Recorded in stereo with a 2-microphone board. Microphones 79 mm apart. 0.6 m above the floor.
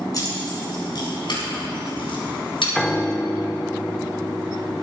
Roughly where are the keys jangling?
Left.